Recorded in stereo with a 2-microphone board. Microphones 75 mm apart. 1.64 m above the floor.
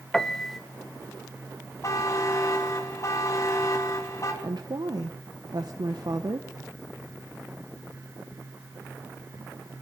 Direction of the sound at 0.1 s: 5° left (ahead or behind).